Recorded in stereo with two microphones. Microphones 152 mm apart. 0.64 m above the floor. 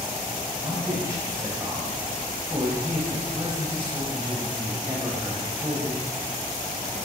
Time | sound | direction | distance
0.6 | a man speaking | 20° right (ahead or behind) | 3.5 m